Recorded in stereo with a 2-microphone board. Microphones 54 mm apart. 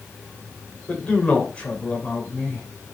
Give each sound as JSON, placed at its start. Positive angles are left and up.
{"t": 0.9, "sound": "a man speaking", "side_deg": 20, "distance_m": 2.0}